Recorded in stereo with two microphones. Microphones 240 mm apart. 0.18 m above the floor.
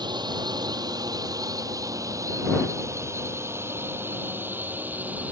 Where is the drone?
20° right (ahead or behind); by 5.3 s 5° right (ahead or behind).